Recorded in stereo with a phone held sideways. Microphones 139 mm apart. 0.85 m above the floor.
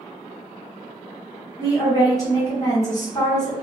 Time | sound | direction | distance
1.6 | a woman speaking | 25° left (ahead or behind) | 1.0 m